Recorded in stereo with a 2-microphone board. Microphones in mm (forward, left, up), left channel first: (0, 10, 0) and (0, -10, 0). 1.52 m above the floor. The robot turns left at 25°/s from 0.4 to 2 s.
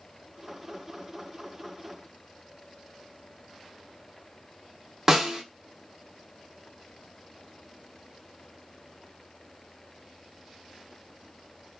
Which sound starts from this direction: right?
A snare drum, at 5.1 s.